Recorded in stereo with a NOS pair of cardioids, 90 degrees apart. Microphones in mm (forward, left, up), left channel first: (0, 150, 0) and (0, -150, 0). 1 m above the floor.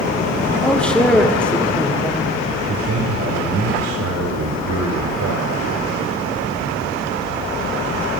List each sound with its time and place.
0.6 s a man speaking: 5° left, 2 m
2.7 s a man speaking: 65° right, 3.5 m